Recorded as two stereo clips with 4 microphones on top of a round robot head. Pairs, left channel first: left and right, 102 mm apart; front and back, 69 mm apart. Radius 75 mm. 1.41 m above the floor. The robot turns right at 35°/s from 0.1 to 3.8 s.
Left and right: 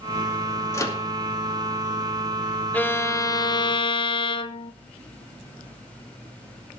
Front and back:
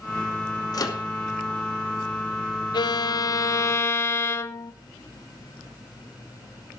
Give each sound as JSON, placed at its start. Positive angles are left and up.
{"t": 0.7, "sound": "a microwave", "azimuth_deg": 30, "distance_m": 2.5}
{"t": 2.7, "sound": "a violin", "azimuth_deg": 15, "distance_m": 1.0}